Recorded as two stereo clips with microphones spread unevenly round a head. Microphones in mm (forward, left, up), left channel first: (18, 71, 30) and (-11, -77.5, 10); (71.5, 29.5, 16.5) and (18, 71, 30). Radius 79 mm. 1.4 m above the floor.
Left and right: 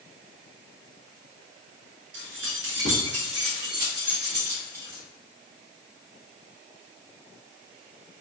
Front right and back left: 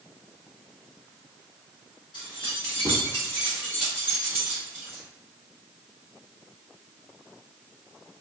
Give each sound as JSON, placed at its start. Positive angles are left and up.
{"t": 2.1, "sound": "keys jangling", "azimuth_deg": -80, "distance_m": 0.9}